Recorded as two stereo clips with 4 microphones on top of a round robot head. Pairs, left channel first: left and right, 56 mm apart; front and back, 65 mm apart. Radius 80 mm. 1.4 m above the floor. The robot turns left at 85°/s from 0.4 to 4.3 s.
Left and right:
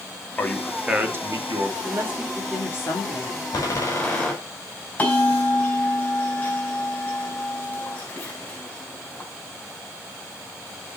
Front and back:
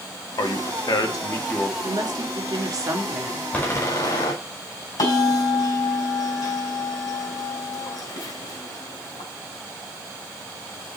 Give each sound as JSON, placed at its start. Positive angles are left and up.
{"t": 0.4, "sound": "a man speaking", "azimuth_deg": 25, "distance_m": 2.5}
{"t": 1.8, "sound": "a woman speaking", "azimuth_deg": -130, "distance_m": 3.0}
{"t": 3.5, "sound": "a door slam", "azimuth_deg": 70, "distance_m": 5.0}
{"t": 5.0, "sound": "a bell", "azimuth_deg": 25, "distance_m": 5.5}